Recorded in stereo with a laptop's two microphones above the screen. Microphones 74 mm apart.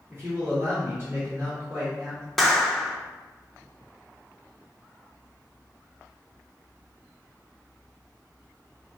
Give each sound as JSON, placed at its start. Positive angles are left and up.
{"t": 0.1, "sound": "a man speaking", "side_deg": -30, "distance_m": 1.0}
{"t": 2.4, "sound": "a clap", "side_deg": 5, "distance_m": 0.7}